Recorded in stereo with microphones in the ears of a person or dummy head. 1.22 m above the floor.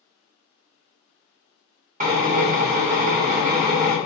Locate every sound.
2.0 s a drill: 40° right (ahead or behind), 0.9 m